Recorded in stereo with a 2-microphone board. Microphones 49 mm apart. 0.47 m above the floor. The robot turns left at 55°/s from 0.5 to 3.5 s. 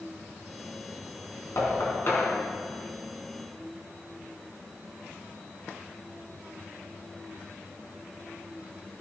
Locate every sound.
1.6 s knocking: 75° left (ahead or behind), 4 m; by 2.3 s 40° left (ahead or behind), 4 m